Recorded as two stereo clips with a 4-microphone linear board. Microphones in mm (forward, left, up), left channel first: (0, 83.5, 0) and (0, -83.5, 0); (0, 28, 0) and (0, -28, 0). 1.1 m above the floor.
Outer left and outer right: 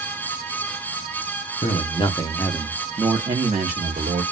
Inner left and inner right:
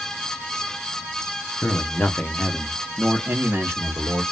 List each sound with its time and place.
1.6 s a man speaking: 40° left (ahead or behind), 0.9 m; by 4.2 s 55° right (ahead or behind), 1.1 m